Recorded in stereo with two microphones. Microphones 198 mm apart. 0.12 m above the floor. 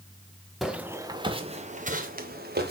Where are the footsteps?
Centre (ahead or behind), 1.0 m; by 2.7 s 50° right (ahead or behind), 1.7 m.